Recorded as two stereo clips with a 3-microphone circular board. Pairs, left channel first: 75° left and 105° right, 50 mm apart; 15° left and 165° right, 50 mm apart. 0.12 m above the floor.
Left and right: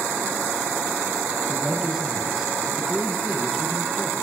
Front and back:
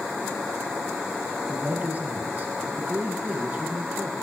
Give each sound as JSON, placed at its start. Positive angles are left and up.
{"t": 1.5, "sound": "a man speaking", "azimuth_deg": 175, "distance_m": 1.5}